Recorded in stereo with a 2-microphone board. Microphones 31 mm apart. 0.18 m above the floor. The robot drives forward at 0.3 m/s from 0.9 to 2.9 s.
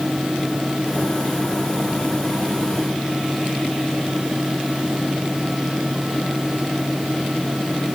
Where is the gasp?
I don't hear a gasp.